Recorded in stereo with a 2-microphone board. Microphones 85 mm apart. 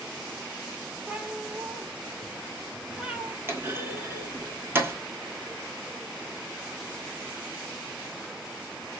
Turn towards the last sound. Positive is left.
turn(degrees=-25)  # may be behind; listen again after turning